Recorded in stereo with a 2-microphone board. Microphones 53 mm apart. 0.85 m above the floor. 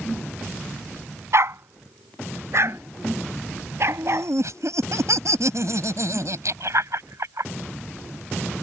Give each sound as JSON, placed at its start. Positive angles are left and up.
{"t": 1.3, "sound": "a dog barking", "side_deg": -60}
{"t": 3.9, "sound": "laughter", "side_deg": -70}